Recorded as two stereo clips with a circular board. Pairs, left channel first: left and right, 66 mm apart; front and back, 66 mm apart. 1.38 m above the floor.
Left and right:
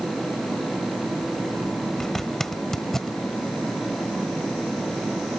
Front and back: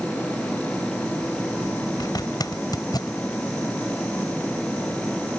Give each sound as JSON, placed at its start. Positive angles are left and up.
{"t": 2.0, "sound": "a zipper", "azimuth_deg": 5}